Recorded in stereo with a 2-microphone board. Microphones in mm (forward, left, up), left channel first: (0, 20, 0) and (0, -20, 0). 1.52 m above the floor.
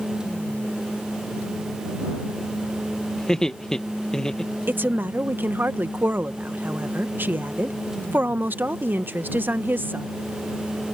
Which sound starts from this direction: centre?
Laughter, at 3.2 s.